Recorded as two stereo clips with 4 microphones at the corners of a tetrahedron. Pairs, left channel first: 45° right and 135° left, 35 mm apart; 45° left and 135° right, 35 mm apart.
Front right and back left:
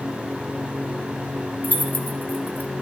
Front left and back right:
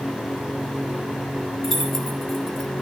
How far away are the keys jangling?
About 1.2 m.